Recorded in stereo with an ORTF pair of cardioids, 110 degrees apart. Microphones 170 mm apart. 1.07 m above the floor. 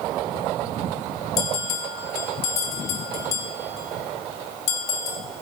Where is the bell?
70° left, 2.5 m.